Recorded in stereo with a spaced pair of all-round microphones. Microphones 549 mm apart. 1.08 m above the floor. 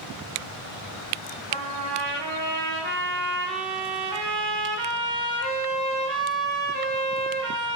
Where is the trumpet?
75° right (ahead or behind), 2 m.